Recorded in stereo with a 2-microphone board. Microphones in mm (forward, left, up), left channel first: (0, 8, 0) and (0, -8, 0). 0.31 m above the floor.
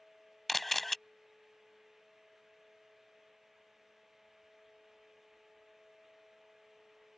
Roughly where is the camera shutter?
Centre.